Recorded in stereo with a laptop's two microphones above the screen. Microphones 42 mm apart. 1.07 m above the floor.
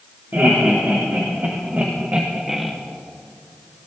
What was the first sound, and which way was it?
Laughter, 60° right (ahead or behind).